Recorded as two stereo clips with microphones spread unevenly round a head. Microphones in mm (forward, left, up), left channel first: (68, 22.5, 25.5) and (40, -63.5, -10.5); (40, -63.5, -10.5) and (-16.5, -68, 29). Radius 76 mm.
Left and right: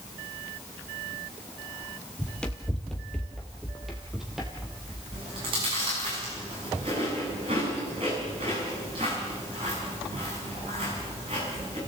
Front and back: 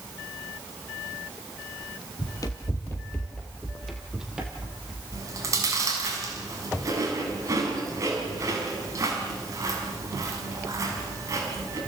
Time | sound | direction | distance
2.2 | running footsteps | 70° left | 1.9 m
5.1 | chewing | 170° right | 6 m